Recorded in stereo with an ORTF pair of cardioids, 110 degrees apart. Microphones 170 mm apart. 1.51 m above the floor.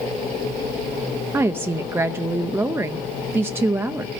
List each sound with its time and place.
1.3 s a woman speaking: 15° right, 0.6 m